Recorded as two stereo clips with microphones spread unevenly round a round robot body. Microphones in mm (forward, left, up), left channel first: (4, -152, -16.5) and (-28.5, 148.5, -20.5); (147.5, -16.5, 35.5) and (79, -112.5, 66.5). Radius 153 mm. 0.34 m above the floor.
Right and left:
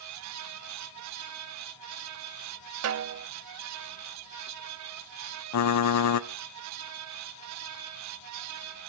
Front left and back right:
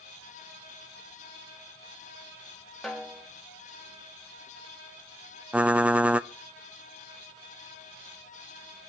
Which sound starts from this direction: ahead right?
Typing on a keyboard, at 5.5 s.